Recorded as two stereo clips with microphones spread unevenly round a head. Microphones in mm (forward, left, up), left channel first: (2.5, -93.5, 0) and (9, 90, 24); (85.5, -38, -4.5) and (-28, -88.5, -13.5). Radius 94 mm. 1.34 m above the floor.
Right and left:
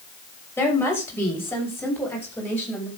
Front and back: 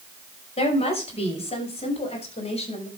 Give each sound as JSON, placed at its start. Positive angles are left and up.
{"t": 0.6, "sound": "a woman speaking", "azimuth_deg": -15, "distance_m": 6.5}